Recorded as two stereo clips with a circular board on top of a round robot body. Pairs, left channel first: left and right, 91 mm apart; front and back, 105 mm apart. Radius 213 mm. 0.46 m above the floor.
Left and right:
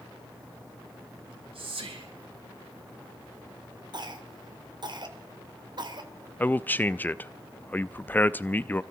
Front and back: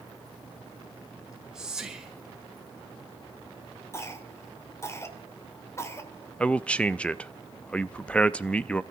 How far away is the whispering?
About 4.5 m.